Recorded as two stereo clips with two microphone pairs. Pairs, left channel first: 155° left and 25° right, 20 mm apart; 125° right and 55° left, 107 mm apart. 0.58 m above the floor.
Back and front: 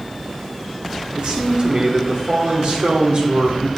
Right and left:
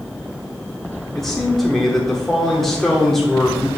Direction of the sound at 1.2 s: 35° right.